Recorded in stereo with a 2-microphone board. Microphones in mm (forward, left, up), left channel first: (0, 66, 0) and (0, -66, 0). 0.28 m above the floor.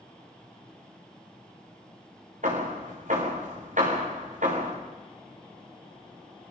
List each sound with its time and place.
2.4 s hammering: 75° right (ahead or behind), 6 m